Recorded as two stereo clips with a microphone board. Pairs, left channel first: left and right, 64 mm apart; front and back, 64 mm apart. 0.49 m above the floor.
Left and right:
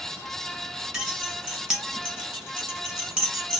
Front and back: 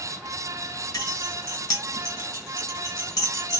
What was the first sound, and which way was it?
Keys jangling, 15° right.